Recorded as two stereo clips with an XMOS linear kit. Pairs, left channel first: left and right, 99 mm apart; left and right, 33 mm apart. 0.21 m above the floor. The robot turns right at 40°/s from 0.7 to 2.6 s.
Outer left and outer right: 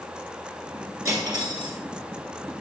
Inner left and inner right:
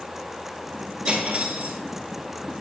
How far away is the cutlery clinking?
About 2.0 m.